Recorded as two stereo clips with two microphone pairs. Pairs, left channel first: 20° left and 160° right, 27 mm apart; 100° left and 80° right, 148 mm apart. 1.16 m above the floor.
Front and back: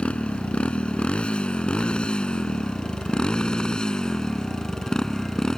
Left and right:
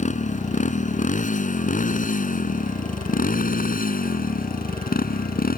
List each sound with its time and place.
0.0 s a motorcycle: 65° left; by 5.6 s 90° left